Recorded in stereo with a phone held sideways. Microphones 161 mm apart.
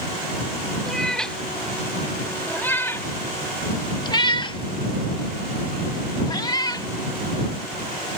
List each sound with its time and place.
0.9 s a cat meowing: 5° left (ahead or behind); by 6.9 s 25° left (ahead or behind)